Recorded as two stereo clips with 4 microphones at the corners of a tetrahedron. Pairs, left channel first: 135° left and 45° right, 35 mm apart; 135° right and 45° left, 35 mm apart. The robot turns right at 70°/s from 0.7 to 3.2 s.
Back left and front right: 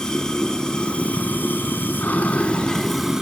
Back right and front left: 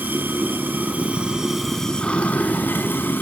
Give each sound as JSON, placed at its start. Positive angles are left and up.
{"t": 0.0, "sound": "running water", "azimuth_deg": 65, "distance_m": 4.5}